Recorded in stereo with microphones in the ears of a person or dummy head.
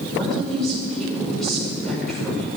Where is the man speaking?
Centre (ahead or behind), 5 m.